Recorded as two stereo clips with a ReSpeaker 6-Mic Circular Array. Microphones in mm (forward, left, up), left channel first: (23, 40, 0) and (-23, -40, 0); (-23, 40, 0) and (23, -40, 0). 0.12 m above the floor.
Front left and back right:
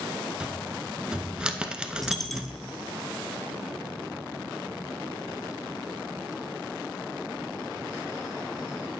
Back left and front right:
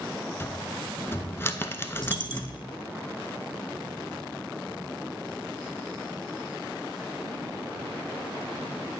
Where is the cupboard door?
165° left, 0.6 m.